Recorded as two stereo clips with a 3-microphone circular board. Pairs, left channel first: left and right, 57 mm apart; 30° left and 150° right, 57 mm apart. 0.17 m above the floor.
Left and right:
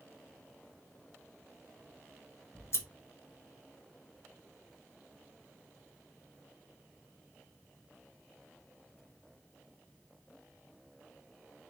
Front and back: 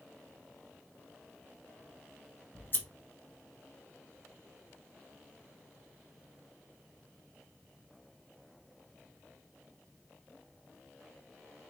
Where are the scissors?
70° left, 1.0 m.